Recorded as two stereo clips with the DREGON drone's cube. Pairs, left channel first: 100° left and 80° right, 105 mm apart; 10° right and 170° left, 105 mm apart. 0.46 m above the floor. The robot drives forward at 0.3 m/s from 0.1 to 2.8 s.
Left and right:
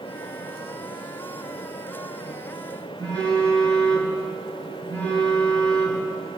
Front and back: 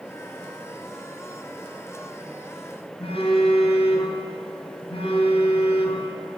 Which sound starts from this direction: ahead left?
A phone buzzing, at 3.0 s.